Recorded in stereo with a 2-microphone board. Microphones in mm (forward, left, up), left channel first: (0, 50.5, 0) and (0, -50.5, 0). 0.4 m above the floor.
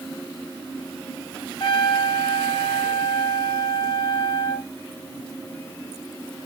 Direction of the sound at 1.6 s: 60° left (ahead or behind).